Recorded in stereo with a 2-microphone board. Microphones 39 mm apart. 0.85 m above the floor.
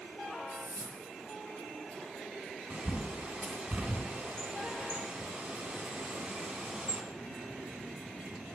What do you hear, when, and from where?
0.5 s a whoosh: 85° left, 4.5 m
2.7 s a bird: 20° right (ahead or behind), 2.5 m